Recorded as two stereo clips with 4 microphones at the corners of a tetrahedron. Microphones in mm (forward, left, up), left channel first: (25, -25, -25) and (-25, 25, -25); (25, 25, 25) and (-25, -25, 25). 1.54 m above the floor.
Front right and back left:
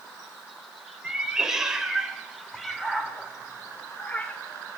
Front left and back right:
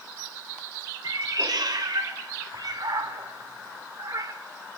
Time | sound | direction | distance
1.0 | a cat meowing | 145° right | 3.5 m